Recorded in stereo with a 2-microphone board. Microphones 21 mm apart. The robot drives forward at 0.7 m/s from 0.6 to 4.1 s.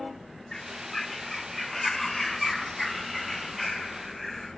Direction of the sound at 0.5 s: 25° left (ahead or behind).